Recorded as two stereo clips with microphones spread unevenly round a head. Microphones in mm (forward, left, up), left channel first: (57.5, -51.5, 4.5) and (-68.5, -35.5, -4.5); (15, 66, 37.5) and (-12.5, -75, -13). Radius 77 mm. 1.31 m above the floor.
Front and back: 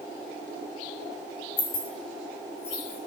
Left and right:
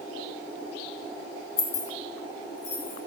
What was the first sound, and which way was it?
Keys jangling, 45° left.